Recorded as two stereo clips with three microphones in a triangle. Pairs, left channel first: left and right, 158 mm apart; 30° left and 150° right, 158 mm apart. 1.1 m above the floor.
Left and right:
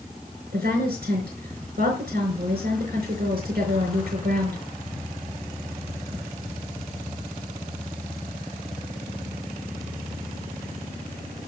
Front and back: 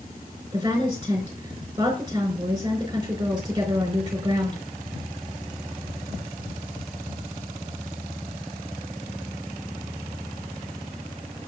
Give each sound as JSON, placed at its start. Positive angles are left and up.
{"t": 0.5, "sound": "a woman speaking", "azimuth_deg": -85, "distance_m": 4.0}